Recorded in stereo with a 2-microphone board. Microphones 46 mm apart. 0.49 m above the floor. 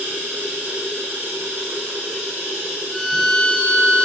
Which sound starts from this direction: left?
A violin, at 2.9 s.